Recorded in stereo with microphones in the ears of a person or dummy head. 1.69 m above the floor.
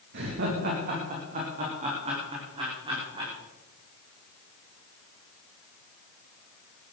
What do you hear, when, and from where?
0.1 s laughter: 55° right (ahead or behind), 2 m; by 3.3 s 25° right (ahead or behind), 5.5 m